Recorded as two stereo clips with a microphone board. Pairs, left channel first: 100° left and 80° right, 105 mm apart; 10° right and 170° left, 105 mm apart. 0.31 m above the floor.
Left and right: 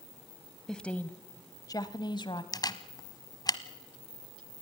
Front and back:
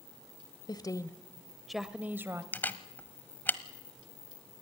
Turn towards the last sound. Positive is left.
turn(degrees=60)